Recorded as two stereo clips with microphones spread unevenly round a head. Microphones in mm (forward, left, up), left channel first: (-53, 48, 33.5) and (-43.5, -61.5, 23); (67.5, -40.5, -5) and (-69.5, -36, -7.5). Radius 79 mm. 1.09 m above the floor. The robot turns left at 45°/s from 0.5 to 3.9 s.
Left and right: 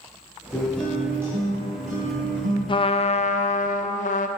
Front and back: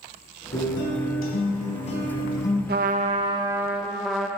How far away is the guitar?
About 2.5 m.